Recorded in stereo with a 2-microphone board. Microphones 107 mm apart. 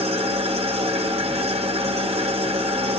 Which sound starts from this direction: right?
An engine running, at 0.0 s.